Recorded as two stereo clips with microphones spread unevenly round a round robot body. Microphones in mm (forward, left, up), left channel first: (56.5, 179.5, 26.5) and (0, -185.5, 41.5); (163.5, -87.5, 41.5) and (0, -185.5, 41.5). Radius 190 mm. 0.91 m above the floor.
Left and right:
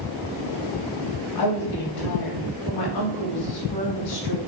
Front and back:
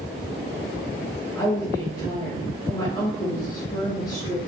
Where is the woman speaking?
105° left, 2.5 m.